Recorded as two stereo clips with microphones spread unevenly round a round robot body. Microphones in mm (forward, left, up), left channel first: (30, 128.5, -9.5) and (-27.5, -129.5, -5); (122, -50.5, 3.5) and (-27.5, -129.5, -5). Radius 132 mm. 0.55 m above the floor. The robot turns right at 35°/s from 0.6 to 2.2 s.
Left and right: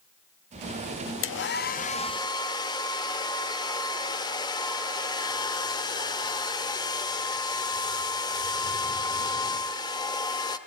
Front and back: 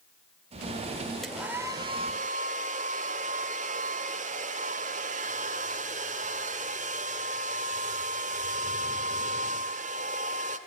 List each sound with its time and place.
1.2 s a hair dryer: 115° left, 1.2 m; by 10.6 s 150° left, 1.2 m